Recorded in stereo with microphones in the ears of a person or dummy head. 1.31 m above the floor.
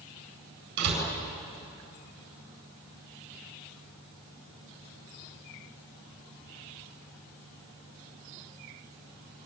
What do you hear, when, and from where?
0.8 s a door slam: 60° right (ahead or behind), 8.5 m